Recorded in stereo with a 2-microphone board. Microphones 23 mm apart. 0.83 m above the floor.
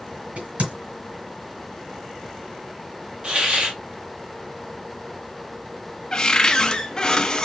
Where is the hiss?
45° right (ahead or behind), 1.7 m.